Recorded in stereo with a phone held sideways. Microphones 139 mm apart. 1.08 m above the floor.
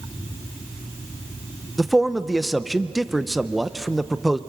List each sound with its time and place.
1.8 s a man speaking: centre (ahead or behind), 0.7 m